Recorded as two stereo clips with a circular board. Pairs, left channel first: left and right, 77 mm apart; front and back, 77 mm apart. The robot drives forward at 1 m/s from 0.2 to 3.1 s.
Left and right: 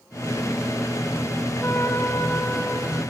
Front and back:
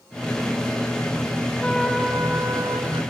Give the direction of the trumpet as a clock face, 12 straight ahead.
10 o'clock.